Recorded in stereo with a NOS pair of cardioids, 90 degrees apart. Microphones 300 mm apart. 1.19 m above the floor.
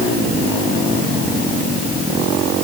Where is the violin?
I don't hear a violin.